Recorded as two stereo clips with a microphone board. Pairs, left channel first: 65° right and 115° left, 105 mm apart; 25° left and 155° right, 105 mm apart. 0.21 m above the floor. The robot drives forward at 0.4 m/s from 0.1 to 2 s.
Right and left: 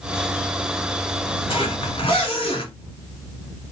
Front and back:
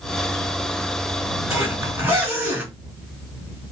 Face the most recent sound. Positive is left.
turn(degrees=-90)